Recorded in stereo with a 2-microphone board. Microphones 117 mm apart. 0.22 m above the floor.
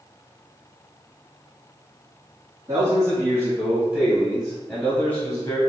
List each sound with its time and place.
2.7 s a man speaking: 30° right (ahead or behind), 2.0 m; by 5.6 s 30° left (ahead or behind), 1.5 m